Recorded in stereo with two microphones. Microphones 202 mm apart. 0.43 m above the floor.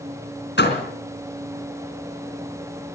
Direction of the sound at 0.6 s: 60° left (ahead or behind).